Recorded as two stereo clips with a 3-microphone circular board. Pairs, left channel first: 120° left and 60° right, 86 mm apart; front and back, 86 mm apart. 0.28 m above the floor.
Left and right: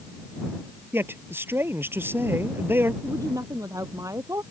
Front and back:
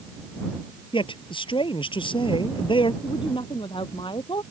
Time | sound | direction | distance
0.9 | a man speaking | 5° left | ?
3.0 | a woman speaking | 10° right | ?